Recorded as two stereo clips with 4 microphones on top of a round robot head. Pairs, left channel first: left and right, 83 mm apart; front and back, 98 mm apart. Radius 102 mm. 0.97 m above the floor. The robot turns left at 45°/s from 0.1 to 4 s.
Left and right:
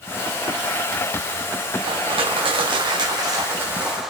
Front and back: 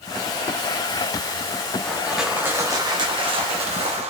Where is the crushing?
80° right, 1.4 m; by 4.1 s 175° right, 1.4 m.